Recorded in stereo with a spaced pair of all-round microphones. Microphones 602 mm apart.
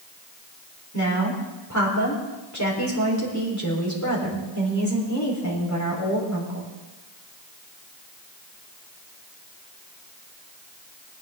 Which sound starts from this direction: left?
A woman speaking, at 0.9 s.